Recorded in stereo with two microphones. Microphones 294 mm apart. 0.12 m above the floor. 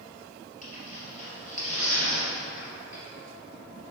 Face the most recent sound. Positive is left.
turn(degrees=25)  # may be behind; listen again after turning